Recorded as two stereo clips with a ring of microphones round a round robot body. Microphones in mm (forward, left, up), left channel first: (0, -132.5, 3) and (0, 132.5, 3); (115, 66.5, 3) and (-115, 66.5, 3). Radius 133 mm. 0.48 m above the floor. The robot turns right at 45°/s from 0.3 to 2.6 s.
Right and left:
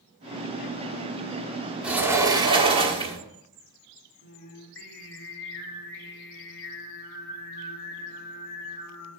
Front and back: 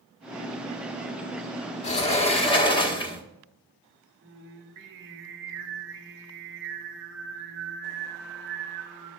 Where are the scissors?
I don't hear scissors.